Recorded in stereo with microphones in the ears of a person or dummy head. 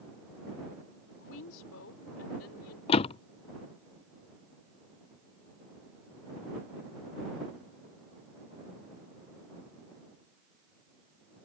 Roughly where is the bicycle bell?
No bicycle bell in this recording.